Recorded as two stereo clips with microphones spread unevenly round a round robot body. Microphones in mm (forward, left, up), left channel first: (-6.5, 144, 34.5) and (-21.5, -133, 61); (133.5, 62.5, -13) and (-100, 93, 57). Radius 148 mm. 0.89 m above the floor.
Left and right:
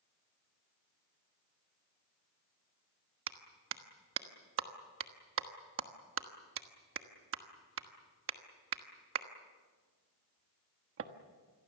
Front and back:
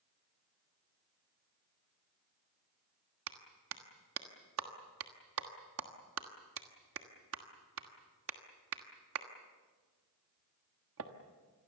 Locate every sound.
3.3 s a clap: 140° right, 1.4 m